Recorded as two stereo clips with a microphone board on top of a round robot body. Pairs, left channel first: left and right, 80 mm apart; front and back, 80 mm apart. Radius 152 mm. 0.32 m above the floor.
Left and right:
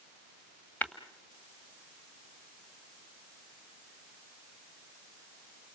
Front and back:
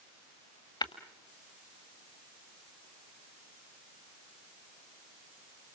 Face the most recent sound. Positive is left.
turn(degrees=20)